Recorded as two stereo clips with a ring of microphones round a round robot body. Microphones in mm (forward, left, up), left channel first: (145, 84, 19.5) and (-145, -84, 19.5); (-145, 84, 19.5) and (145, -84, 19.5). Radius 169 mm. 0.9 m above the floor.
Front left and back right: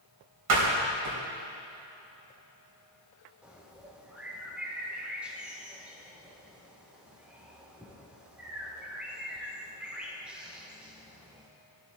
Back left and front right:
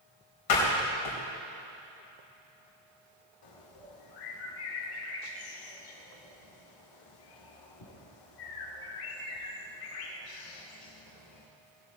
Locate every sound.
0.5 s a door slam: 175° left, 3.5 m
3.4 s a bird: 125° left, 1.7 m